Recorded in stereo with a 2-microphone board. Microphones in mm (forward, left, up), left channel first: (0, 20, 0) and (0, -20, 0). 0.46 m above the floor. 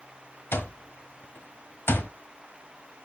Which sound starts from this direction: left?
An alarm clock, at 0.5 s.